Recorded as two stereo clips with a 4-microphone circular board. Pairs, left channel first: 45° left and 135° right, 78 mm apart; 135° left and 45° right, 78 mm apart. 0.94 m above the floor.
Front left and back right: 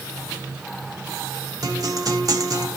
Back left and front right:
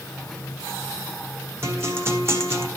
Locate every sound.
1.6 s a guitar: 100° right, 1.4 m